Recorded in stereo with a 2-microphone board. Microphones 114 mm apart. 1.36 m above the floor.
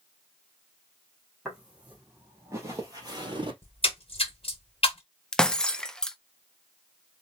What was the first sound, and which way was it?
Footsteps, 5° right (ahead or behind).